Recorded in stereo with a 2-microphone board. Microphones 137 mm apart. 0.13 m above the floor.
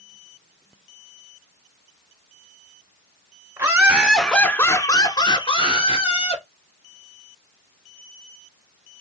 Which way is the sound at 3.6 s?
25° right (ahead or behind).